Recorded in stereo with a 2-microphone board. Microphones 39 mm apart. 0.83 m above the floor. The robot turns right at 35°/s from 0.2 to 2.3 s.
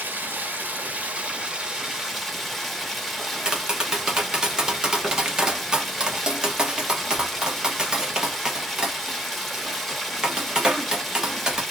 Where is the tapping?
20° right (ahead or behind), 0.9 m.